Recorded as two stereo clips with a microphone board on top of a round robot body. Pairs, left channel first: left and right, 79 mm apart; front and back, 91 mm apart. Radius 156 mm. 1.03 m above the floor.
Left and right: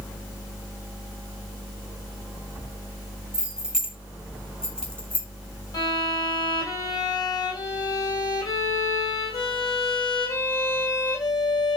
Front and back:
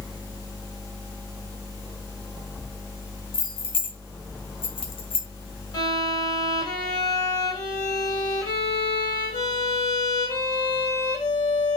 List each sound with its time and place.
3.3 s keys jangling: 15° right, 2.5 m; by 5.3 s 20° left, 2.0 m
5.7 s a violin: 50° left, 2.5 m